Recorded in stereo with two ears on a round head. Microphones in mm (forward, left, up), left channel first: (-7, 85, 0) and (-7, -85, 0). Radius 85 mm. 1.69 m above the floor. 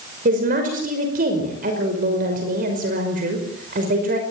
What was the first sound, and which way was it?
A woman speaking, 45° right (ahead or behind).